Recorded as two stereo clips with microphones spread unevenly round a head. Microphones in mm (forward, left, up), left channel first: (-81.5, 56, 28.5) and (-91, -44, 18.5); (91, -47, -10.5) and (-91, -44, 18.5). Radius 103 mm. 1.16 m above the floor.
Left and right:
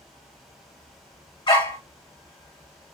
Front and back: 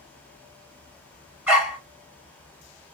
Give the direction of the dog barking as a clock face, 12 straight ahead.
8 o'clock.